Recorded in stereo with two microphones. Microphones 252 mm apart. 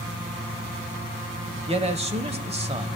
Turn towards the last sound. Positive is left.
turn(degrees=-25)  # may be behind; listen again after turning